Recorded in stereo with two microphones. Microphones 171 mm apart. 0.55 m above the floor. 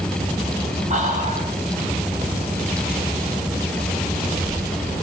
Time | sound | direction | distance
0.9 | whispering | 50° right (ahead or behind) | 3.5 m